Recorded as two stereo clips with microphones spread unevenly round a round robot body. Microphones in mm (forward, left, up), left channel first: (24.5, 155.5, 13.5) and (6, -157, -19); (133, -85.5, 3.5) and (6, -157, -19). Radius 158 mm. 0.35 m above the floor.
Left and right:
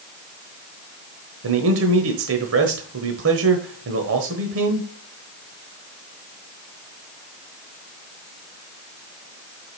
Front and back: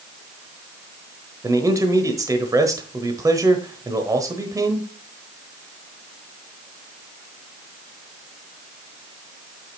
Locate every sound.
1.4 s a man speaking: 100° right, 1.2 m